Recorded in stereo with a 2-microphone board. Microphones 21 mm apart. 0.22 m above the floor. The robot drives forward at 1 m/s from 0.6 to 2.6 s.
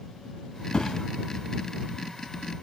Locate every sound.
0.7 s a thud: 40° left (ahead or behind), 0.9 m; by 1.1 s 30° left (ahead or behind), 1.1 m